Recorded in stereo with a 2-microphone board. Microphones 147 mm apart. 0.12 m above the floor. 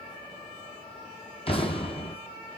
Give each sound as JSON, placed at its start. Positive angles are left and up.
{"t": 1.5, "sound": "an explosion", "side_deg": 40, "distance_m": 1.1}